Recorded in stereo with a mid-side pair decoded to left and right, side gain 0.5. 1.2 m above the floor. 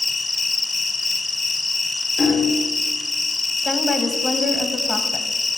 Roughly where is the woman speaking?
Ahead.